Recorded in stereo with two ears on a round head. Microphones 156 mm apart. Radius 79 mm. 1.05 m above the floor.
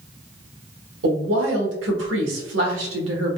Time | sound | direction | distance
1.0 | a woman speaking | 75° right (ahead or behind) | 1.1 m